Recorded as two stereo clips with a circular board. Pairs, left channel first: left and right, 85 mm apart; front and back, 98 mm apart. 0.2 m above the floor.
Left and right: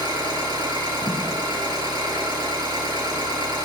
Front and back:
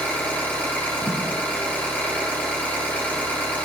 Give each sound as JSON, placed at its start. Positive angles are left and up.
{"t": 0.0, "sound": "an engine running", "azimuth_deg": -70, "distance_m": 3.0}
{"t": 1.0, "sound": "a thud", "azimuth_deg": -30, "distance_m": 5.0}